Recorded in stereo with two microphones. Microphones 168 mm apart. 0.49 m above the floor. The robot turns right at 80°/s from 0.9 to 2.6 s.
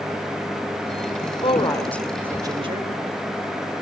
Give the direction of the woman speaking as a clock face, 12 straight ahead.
8 o'clock.